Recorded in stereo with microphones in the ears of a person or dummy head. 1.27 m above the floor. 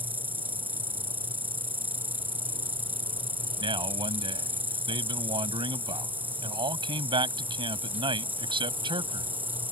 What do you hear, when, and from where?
0.0 s an insect: 10° right (ahead or behind)
3.6 s a man speaking: 25° right (ahead or behind)